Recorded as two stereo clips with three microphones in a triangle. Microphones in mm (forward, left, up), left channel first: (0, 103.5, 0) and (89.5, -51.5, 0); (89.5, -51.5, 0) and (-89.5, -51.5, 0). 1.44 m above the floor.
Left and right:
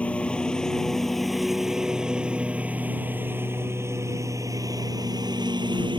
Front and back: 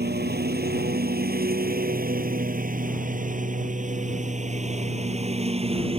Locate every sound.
0.0 s a lawn mower: 155° right; by 6.0 s 125° right